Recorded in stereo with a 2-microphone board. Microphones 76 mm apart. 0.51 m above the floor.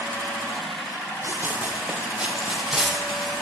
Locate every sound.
1.2 s running footsteps: 30° right (ahead or behind), 4.5 m; by 3.4 s centre (ahead or behind), 6 m